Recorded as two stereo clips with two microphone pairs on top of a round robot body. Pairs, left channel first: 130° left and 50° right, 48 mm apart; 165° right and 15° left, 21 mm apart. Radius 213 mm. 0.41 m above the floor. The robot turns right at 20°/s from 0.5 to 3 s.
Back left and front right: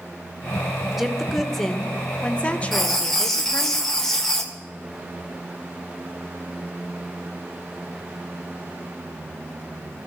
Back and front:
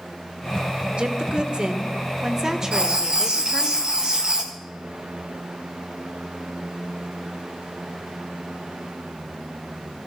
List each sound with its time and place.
0.9 s a woman speaking: 35° left, 2 m; by 3.7 s 75° left, 2 m
2.7 s writing: 45° left, 2.5 m; by 4.5 s 50° left, 2.5 m